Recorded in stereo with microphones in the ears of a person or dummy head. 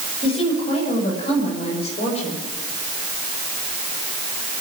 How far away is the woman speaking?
About 6.5 m.